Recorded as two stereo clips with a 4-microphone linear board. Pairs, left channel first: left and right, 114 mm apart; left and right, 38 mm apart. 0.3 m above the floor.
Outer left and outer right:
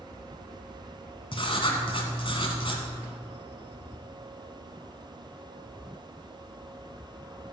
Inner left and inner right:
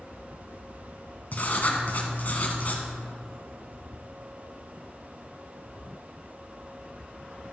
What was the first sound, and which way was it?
Writing, 50° left (ahead or behind).